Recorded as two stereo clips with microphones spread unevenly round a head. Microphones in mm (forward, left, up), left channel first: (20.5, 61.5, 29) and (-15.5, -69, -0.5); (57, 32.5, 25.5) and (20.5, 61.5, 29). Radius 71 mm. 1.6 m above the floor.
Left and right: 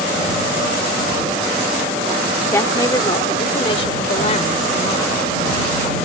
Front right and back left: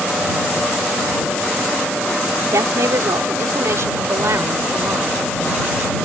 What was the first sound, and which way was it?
A woman speaking, 145° left.